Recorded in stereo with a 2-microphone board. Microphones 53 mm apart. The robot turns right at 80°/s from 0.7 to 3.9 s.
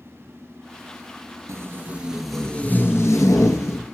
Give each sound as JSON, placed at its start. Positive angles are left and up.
{"t": 1.5, "sound": "tape being pulled", "azimuth_deg": -65, "distance_m": 0.8}